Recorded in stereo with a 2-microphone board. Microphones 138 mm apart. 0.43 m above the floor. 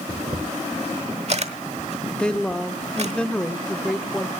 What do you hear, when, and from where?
0.1 s a camera shutter: 50° right (ahead or behind), 1.0 m
2.1 s a woman speaking: 5° left (ahead or behind), 0.7 m